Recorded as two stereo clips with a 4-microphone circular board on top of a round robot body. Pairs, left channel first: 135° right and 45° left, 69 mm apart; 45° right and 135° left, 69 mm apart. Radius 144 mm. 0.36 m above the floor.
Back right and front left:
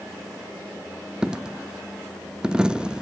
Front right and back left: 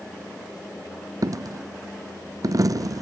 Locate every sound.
1.2 s a dropped coin: 120° left, 0.5 m